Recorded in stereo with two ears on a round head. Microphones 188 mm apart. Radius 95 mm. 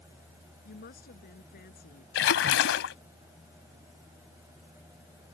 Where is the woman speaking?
50° left (ahead or behind).